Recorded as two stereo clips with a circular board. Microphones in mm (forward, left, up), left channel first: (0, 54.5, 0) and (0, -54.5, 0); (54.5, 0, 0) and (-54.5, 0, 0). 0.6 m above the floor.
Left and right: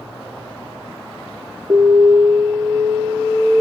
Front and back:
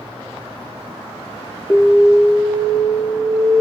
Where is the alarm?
60° right, 1.1 m.